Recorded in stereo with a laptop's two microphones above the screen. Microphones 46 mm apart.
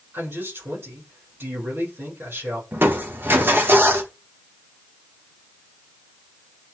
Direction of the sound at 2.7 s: 50° right (ahead or behind).